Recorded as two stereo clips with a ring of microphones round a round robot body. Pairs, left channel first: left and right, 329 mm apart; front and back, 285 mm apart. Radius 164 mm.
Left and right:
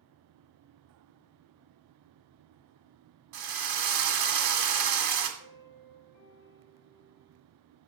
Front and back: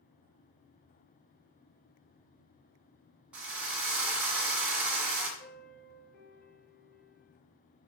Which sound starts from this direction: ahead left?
A piano, at 5.4 s.